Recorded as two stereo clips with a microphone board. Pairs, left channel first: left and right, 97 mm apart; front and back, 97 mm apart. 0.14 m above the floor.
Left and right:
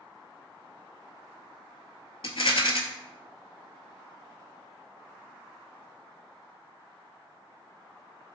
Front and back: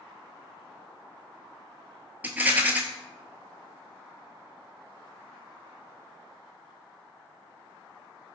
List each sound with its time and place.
2.2 s a rattle: 105° left, 0.5 m